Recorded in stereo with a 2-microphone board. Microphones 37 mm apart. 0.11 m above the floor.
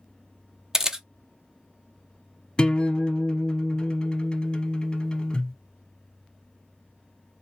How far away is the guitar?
About 1.0 m.